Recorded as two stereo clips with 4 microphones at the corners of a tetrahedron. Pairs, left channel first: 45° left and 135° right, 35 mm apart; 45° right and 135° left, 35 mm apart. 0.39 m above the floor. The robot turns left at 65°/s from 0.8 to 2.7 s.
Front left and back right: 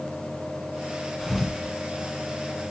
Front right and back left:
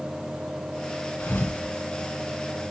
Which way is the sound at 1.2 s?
30° right.